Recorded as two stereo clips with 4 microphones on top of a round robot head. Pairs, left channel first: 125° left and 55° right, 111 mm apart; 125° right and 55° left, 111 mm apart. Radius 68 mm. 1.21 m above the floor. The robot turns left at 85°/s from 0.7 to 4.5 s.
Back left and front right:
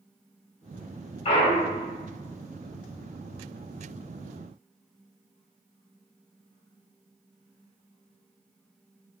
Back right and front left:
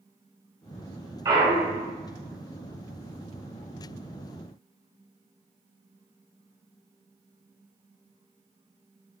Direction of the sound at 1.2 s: 110° left.